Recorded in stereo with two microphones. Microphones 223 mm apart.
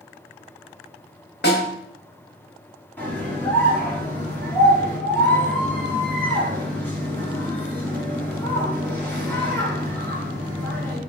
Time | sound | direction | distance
1.4 | a snare drum | 50° left (ahead or behind) | 2 m
3.0 | a scream | 10° left (ahead or behind) | 2.5 m